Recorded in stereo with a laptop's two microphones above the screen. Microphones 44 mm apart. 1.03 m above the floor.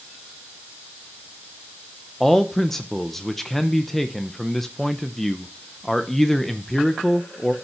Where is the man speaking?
10° left (ahead or behind), 0.7 m.